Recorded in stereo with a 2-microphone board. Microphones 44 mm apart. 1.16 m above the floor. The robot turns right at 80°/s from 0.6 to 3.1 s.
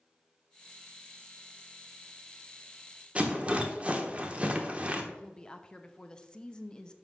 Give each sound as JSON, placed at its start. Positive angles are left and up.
{"t": 3.1, "sound": "a rattle", "side_deg": -30, "distance_m": 0.9}
{"t": 5.1, "sound": "a woman speaking", "side_deg": 20, "distance_m": 0.7}